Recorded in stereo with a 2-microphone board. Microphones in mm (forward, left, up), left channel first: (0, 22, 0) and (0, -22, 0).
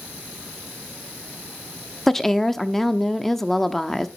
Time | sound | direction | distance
2.1 | a woman speaking | 5° left (ahead or behind) | 0.8 m